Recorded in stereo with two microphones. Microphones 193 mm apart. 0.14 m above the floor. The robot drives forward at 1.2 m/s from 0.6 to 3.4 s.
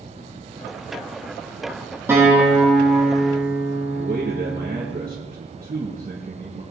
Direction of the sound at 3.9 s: 45° right (ahead or behind).